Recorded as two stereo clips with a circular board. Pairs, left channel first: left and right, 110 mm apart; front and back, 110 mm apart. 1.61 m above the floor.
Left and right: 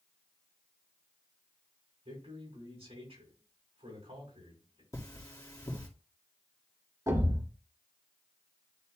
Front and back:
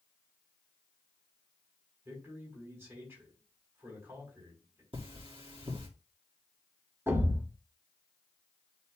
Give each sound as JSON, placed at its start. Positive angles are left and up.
{"t": 2.0, "sound": "a man speaking", "azimuth_deg": -110, "distance_m": 5.0}
{"t": 4.9, "sound": "cutlery clinking", "azimuth_deg": 150, "distance_m": 2.5}
{"t": 7.1, "sound": "a thud", "azimuth_deg": -125, "distance_m": 1.5}